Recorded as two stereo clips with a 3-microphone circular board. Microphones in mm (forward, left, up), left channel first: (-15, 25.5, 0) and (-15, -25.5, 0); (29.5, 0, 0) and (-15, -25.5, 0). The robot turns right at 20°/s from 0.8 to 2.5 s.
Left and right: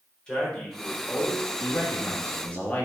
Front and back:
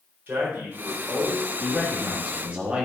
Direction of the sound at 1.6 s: 135° left.